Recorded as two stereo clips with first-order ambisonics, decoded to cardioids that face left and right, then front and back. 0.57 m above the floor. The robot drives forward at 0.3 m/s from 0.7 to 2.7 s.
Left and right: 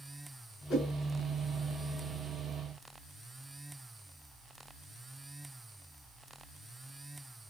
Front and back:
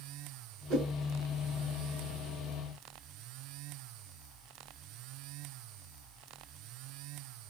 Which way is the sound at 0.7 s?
150° left.